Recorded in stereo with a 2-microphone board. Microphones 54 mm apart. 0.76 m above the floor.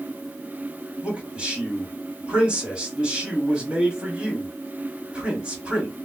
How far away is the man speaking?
About 1.4 m.